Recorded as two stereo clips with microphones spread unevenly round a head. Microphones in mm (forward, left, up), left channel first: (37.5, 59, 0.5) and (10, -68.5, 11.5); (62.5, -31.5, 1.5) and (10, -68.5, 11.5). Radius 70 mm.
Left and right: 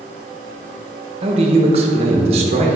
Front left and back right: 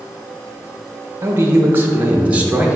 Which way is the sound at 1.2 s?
120° right.